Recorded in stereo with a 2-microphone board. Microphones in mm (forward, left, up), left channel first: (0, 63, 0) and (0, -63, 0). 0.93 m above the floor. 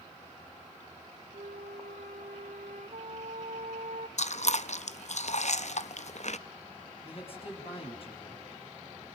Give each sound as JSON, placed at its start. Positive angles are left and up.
{"t": 1.3, "sound": "a flute", "side_deg": -70, "distance_m": 1.8}
{"t": 4.2, "sound": "chewing", "side_deg": 60, "distance_m": 0.7}
{"t": 7.0, "sound": "a man speaking", "side_deg": 45, "distance_m": 6.5}